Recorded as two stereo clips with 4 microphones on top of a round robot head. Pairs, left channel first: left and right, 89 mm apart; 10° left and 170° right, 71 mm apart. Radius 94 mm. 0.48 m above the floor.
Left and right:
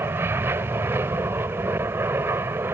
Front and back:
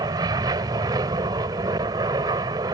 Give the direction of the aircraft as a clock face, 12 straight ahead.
5 o'clock.